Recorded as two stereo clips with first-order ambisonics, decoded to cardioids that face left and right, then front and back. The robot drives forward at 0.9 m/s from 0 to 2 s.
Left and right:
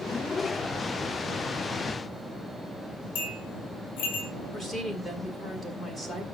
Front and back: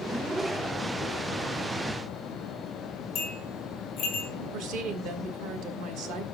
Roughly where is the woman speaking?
Behind.